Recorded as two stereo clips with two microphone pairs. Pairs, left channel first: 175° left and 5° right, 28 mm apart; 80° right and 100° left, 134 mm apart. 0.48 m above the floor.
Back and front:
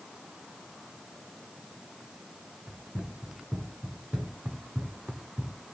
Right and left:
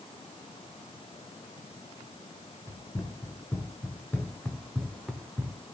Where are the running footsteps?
15° right, 3 m; by 5.5 s 20° left, 2.5 m.